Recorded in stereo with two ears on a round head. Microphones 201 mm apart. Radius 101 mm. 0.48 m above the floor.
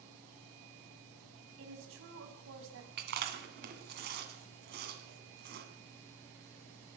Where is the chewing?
45° right (ahead or behind), 2 m.